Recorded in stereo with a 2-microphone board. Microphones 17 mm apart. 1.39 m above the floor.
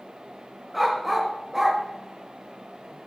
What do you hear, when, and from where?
0.7 s a dog barking: 5° right (ahead or behind), 1.3 m; by 3.1 s 35° right (ahead or behind), 1.8 m